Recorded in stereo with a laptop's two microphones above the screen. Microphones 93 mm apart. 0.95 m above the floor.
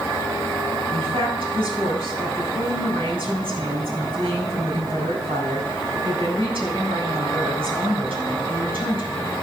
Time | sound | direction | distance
0.9 | a woman speaking | 75° right (ahead or behind) | 7 m